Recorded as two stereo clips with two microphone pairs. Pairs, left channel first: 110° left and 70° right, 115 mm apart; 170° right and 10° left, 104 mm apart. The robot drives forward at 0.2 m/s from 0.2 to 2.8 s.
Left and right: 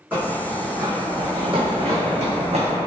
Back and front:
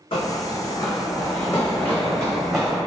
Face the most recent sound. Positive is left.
turn(degrees=-80)